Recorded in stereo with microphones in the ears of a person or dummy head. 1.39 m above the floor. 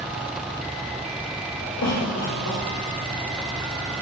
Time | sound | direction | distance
1.8 | a cough | 75° left (ahead or behind) | 2.5 m